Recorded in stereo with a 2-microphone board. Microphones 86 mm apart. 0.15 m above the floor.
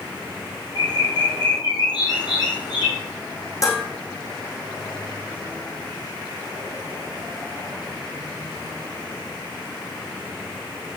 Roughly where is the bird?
Left.